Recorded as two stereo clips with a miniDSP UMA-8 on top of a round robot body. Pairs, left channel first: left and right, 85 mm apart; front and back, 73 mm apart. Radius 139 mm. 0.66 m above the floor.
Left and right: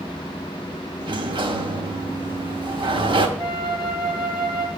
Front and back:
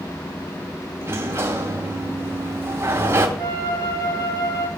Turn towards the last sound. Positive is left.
turn(degrees=-15)